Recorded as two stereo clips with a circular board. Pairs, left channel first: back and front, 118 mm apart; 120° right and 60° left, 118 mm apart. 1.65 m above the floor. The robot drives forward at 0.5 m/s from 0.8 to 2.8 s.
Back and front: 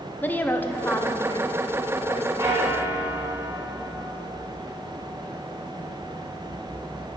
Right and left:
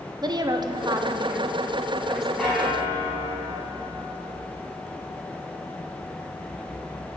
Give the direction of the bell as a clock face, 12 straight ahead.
1 o'clock.